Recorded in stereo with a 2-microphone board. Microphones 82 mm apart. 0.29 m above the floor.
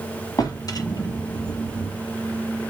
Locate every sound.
0.4 s a drawer: 55° left (ahead or behind), 1.0 m